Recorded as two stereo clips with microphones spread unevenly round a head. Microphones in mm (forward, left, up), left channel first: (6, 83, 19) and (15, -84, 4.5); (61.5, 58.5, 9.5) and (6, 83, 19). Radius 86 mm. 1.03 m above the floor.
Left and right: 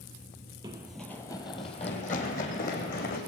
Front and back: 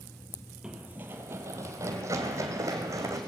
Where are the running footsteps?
150° right, 1.1 m; by 3.2 s 130° left, 3.5 m.